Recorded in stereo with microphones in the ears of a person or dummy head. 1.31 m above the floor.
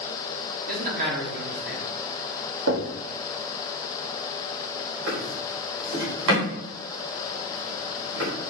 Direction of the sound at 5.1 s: 75° right (ahead or behind).